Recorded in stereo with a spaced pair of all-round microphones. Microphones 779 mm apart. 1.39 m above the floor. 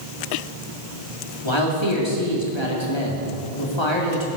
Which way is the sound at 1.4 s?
35° left (ahead or behind).